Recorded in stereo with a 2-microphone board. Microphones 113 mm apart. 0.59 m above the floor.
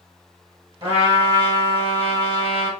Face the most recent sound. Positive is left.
turn(degrees=-50)  # may be behind; listen again after turning